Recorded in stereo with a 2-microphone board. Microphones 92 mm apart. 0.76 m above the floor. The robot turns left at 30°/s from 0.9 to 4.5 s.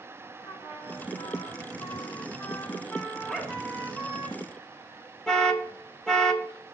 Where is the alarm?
5° left (ahead or behind), 1.5 m.